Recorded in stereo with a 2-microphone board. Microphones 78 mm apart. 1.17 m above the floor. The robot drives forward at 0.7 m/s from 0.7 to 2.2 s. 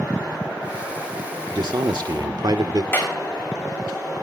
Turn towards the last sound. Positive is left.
turn(degrees=25)  # may be behind; listen again after turning